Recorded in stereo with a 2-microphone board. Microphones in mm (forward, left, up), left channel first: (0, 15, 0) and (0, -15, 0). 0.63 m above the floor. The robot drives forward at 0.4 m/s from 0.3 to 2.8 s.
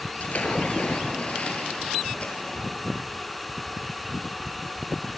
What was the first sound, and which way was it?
A splash, 55° left (ahead or behind).